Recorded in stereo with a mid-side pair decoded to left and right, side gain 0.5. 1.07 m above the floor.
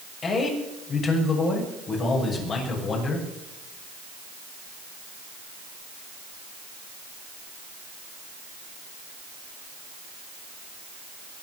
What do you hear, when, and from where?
0.2 s a man speaking: 50° left, 6.5 m